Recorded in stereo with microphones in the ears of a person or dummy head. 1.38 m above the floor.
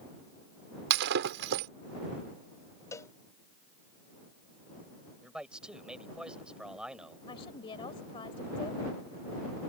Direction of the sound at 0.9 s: 55° right (ahead or behind).